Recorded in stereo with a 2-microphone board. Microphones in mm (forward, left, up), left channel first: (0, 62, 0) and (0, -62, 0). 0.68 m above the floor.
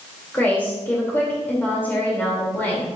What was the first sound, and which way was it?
A woman speaking, 15° left (ahead or behind).